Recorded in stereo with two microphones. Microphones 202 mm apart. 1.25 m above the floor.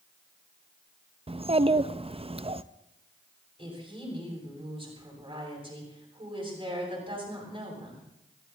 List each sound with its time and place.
1.3 s a child speaking: 30° right (ahead or behind), 0.5 m
3.6 s a woman speaking: 25° right (ahead or behind), 8 m